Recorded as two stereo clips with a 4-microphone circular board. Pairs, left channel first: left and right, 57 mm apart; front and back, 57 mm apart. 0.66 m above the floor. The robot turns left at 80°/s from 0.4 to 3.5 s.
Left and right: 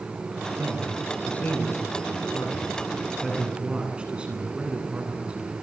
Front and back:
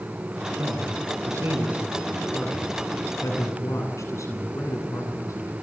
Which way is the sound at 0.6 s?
145° right.